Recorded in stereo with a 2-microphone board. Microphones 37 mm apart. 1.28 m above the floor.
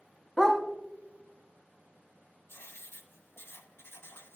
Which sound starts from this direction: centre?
A dog barking, at 0.4 s.